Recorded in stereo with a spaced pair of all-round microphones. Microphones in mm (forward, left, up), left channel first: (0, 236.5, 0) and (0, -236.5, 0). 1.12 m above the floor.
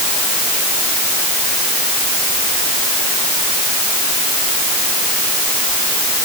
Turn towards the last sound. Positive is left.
No sound to turn to.